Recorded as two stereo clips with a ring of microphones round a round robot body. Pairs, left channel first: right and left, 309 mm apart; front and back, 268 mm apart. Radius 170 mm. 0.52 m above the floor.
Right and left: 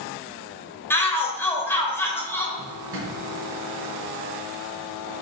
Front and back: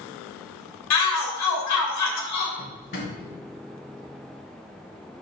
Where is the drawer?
40° left, 2.5 m.